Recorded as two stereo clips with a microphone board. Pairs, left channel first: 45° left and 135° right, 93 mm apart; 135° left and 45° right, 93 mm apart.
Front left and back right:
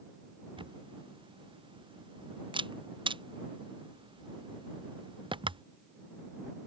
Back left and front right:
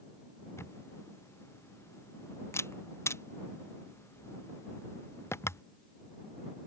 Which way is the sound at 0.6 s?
165° right.